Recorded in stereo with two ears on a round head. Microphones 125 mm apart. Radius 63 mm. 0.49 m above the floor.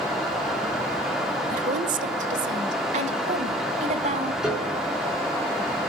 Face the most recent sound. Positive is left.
turn(degrees=-5)  # may be behind; listen again after turning